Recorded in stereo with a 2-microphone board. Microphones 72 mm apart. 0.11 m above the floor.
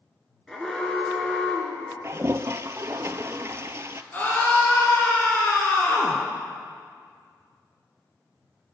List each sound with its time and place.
0.5 s an alarm: 5° left (ahead or behind), 1.7 m
2.0 s a toilet flushing: 40° right (ahead or behind), 0.5 m
4.1 s a scream: 25° left (ahead or behind), 1.7 m